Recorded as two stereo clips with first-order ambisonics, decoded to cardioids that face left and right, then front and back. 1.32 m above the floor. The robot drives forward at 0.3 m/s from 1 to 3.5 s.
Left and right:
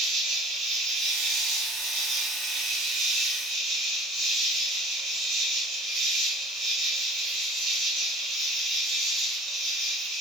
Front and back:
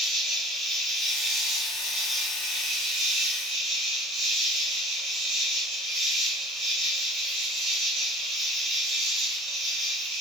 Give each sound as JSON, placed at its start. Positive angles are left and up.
{"t": 0.0, "sound": "an insect", "azimuth_deg": -100, "distance_m": 1.2}